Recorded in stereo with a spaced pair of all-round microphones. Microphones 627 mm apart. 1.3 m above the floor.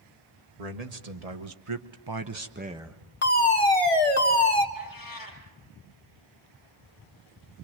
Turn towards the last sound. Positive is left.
turn(degrees=30)  # may be behind; listen again after turning